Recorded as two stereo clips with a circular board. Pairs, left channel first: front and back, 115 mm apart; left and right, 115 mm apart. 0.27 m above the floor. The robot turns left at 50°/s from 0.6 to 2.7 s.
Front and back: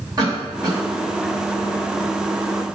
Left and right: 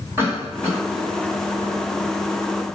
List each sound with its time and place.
0.2 s a cough: 145° right, 1.9 m; by 0.8 s 160° right, 1.9 m